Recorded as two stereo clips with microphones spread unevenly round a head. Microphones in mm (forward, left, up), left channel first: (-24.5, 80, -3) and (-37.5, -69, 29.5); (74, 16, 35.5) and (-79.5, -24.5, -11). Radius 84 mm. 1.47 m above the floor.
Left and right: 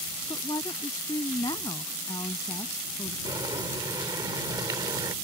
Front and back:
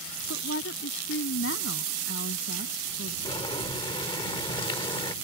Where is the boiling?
35° right.